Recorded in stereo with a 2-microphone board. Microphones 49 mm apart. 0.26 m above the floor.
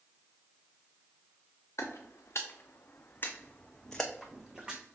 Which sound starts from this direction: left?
Footsteps, at 1.8 s.